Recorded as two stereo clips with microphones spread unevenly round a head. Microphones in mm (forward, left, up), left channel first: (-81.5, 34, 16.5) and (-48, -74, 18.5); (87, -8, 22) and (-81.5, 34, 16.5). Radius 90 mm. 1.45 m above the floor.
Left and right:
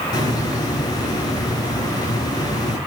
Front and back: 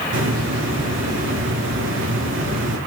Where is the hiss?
160° left, 5.5 m.